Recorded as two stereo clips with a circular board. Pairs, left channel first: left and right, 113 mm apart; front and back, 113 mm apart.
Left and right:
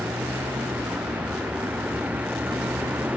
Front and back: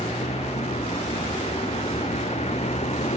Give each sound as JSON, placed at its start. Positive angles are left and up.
{"t": 0.0, "sound": "a vehicle", "azimuth_deg": -15}